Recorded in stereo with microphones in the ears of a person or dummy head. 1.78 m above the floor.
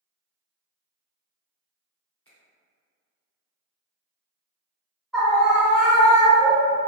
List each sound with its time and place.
2.2 s a finger snap: 10° left (ahead or behind), 1.0 m
5.1 s a scream: 5° left (ahead or behind), 0.7 m